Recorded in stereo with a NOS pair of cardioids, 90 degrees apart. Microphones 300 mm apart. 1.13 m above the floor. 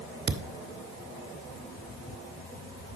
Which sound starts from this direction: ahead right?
A thud, at 0.3 s.